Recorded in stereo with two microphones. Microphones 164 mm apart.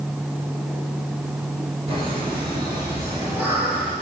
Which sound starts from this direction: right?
Laughter, at 1.9 s.